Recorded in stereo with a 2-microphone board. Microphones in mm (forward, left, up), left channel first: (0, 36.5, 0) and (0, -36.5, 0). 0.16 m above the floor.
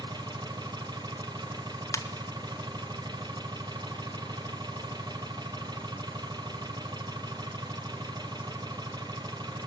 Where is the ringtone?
50° left (ahead or behind), 1.7 m.